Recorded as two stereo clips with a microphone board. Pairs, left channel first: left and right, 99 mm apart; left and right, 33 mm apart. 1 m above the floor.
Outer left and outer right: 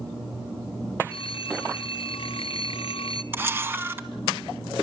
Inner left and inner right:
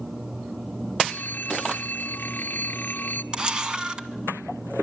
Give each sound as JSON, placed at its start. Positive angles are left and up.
{"t": 1.1, "sound": "a phone ringing", "side_deg": 65, "distance_m": 1.1}
{"t": 3.3, "sound": "a camera shutter", "side_deg": -20, "distance_m": 1.4}